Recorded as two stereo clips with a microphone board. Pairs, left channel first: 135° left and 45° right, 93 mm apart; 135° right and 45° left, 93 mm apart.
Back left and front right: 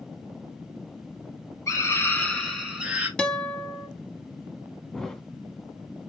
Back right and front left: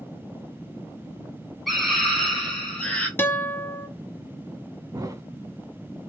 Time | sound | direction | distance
1.7 | a scream | 135° left | 1.8 m
3.2 | a guitar | 160° right | 0.6 m
4.9 | a thud | 55° left | 0.6 m